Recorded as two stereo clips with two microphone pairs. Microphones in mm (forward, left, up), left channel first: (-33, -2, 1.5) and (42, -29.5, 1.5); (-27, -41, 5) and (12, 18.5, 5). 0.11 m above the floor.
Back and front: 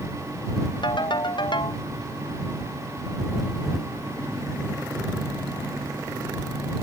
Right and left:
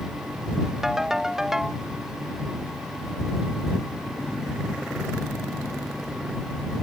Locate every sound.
0.8 s a ringtone: 140° left